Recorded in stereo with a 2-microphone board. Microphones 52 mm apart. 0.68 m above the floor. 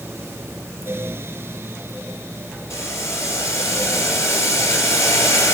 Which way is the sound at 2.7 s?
65° left (ahead or behind).